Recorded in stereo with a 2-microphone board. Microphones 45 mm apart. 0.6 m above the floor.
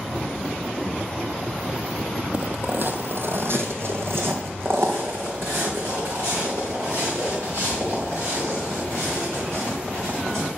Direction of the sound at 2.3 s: 35° right (ahead or behind).